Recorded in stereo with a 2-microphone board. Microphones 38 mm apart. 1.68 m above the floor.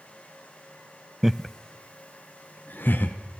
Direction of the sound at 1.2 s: 10° right (ahead or behind).